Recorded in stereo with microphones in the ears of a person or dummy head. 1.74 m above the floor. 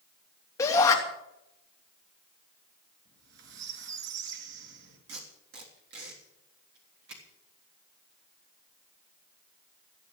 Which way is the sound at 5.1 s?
70° right (ahead or behind).